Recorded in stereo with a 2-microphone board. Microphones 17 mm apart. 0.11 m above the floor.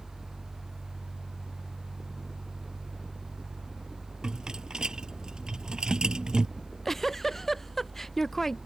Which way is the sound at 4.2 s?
50° right (ahead or behind).